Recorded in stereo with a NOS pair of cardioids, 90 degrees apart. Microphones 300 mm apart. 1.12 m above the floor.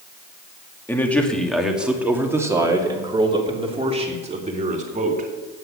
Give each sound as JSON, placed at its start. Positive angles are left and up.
{"t": 0.9, "sound": "a man speaking", "azimuth_deg": 5, "distance_m": 2.5}